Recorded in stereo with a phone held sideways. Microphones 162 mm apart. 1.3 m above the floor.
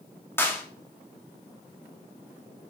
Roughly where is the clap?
Centre.